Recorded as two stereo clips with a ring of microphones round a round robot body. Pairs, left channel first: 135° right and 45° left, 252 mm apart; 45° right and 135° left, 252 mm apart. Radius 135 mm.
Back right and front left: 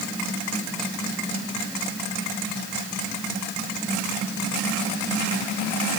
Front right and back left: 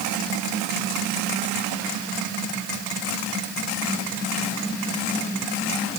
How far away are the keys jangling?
I don't hear keys jangling.